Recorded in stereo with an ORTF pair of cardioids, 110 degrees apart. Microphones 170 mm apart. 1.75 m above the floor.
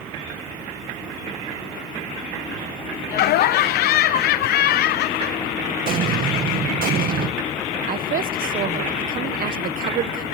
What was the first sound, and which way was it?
Laughter, 70° left.